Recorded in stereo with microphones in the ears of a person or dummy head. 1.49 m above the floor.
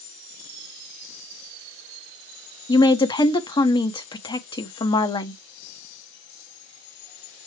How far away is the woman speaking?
About 0.9 m.